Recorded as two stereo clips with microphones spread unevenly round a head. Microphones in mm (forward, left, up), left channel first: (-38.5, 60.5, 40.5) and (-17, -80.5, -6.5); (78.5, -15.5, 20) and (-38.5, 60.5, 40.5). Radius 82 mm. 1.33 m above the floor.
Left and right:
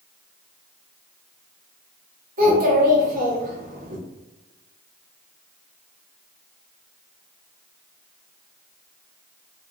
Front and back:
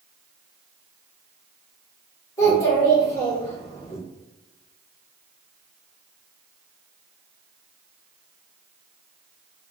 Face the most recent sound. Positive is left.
turn(degrees=-110)